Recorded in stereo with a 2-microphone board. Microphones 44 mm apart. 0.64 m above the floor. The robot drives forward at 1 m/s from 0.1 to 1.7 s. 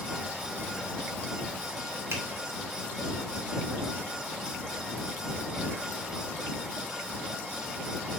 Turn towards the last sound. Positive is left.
turn(degrees=-60)  # may be behind; listen again after turning